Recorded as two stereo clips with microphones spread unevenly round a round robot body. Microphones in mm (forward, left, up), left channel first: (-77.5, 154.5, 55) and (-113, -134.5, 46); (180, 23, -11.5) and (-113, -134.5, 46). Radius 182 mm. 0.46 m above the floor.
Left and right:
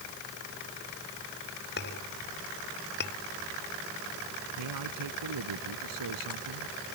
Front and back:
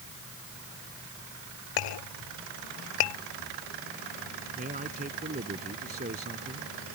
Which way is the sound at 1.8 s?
20° left.